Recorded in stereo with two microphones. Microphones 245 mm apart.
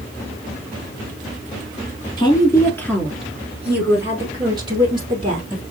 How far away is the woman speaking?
About 1.1 m.